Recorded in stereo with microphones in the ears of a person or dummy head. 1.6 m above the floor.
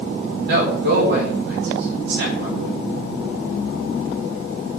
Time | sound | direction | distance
0.5 | a man speaking | 70° right (ahead or behind) | 6 m